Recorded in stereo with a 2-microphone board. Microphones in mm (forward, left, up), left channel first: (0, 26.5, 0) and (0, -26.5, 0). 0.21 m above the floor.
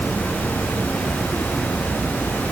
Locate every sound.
Only background noise.